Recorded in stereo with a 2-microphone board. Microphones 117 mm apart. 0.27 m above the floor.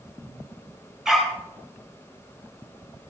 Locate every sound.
1.1 s a dog barking: 5° right (ahead or behind), 3 m